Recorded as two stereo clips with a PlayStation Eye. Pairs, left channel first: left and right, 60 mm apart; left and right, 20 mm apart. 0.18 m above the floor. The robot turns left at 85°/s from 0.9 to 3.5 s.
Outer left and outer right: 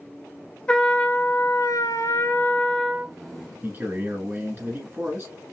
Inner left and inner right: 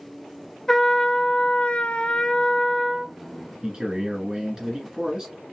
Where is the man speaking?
30° right (ahead or behind), 1.6 m.